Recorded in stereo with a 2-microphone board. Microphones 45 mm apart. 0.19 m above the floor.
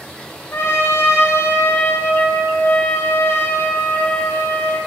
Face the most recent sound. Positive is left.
turn(degrees=65)  # may be behind; listen again after turning